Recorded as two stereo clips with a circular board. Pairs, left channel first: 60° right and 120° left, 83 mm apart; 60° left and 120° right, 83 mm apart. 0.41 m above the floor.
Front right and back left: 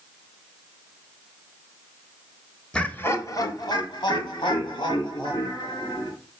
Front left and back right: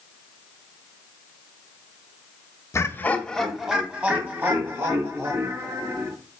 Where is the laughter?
15° left, 1.3 m; by 6.1 s 65° right, 5 m.